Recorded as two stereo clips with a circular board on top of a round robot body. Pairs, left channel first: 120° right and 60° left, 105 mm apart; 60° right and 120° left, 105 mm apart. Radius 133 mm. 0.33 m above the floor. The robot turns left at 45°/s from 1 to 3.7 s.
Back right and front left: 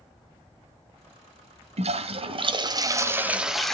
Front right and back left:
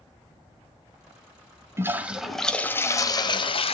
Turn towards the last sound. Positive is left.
turn(degrees=-35)